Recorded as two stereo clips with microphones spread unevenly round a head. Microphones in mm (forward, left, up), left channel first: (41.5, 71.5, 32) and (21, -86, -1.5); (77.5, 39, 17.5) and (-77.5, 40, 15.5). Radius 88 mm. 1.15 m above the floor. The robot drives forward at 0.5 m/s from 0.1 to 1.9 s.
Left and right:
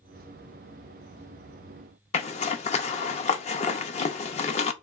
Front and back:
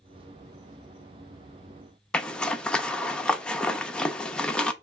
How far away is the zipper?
About 0.6 m.